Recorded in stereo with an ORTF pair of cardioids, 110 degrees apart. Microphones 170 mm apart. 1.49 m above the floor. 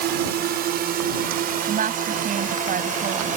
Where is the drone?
70° right; by 3.4 s 50° right.